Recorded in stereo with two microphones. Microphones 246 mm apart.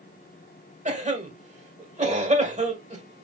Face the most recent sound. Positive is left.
turn(degrees=-30)  # may be behind; listen again after turning